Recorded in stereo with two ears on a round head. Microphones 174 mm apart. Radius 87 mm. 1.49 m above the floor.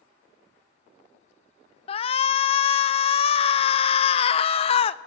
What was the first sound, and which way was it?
A shout, 30° left (ahead or behind).